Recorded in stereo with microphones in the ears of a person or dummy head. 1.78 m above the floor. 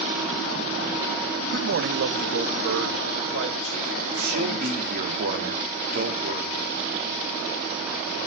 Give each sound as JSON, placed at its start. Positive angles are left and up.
{"t": 1.5, "sound": "a man speaking", "side_deg": -55, "distance_m": 0.9}
{"t": 4.2, "sound": "a man speaking", "side_deg": -50, "distance_m": 4.0}